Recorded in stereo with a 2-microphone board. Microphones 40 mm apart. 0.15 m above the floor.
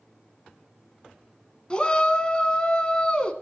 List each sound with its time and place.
1.7 s a shout: 25° left (ahead or behind), 1.0 m